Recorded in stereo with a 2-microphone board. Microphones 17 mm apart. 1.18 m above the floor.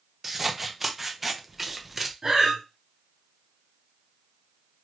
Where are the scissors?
10° right (ahead or behind), 0.6 m.